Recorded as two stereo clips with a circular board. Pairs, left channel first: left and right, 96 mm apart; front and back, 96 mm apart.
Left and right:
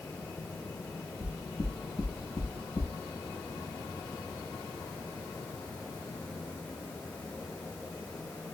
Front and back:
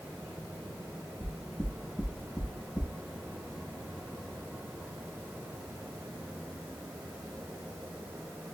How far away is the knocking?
About 0.9 m.